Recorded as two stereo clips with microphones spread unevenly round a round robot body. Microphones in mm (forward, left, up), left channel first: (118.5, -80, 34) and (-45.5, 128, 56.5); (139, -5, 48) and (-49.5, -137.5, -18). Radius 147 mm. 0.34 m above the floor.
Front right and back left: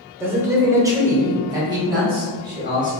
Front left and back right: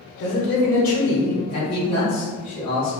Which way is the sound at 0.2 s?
45° left.